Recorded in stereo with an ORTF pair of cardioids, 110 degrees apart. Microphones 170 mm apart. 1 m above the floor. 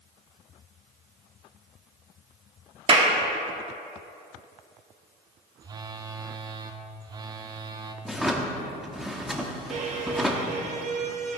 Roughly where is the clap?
Ahead right.